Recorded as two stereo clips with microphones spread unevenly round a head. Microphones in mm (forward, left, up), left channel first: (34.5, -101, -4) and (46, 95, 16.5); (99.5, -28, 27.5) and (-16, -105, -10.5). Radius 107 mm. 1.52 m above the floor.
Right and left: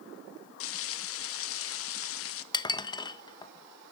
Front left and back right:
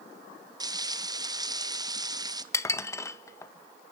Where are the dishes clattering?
25° right, 1.0 m.